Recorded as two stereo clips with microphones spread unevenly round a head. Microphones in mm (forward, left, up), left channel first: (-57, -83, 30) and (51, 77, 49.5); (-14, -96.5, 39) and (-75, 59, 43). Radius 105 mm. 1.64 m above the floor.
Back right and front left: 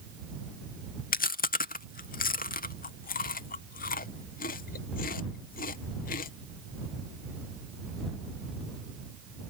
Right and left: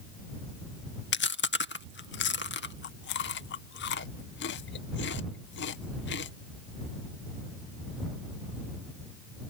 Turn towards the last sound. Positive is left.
turn(degrees=-75)